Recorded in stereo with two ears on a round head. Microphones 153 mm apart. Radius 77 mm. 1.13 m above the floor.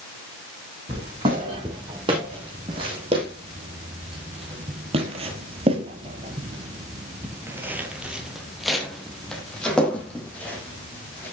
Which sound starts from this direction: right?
Footsteps, at 0.9 s.